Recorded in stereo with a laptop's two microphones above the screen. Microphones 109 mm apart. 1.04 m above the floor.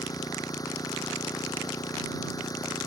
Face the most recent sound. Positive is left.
turn(degrees=35)  # may be behind; listen again after turning